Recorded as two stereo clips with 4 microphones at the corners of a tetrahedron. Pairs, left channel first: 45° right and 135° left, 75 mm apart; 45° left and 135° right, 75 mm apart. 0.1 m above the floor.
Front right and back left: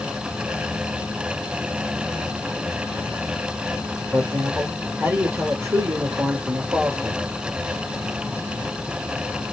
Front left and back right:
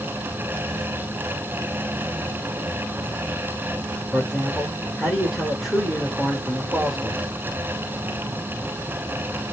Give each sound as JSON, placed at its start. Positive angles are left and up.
{"t": 4.1, "sound": "a man speaking", "azimuth_deg": 140, "distance_m": 1.6}